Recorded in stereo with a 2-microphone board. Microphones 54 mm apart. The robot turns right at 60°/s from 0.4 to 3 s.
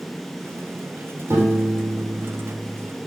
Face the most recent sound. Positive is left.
turn(degrees=-10)